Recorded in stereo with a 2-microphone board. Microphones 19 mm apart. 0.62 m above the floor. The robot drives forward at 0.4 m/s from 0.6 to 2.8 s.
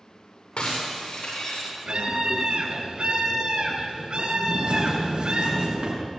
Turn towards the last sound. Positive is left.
turn(degrees=-65)  # may be behind; listen again after turning